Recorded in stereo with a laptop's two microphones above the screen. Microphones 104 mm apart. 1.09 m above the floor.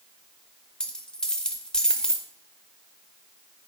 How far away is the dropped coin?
About 0.8 m.